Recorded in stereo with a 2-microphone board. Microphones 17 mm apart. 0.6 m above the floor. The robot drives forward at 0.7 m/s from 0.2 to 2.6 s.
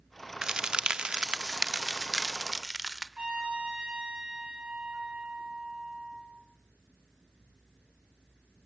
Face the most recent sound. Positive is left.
turn(degrees=-80)